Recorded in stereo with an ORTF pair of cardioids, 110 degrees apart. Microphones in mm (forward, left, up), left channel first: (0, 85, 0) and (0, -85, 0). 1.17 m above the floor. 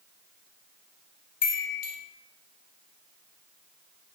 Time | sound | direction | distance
1.4 | a chime | 55° left | 0.8 m